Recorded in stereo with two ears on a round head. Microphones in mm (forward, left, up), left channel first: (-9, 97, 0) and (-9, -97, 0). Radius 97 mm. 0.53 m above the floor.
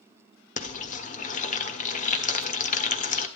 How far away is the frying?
About 1.6 m.